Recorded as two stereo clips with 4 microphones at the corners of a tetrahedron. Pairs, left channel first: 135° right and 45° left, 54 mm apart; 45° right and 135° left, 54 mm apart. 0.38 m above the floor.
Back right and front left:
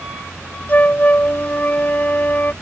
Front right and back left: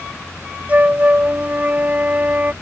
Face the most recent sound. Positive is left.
turn(degrees=180)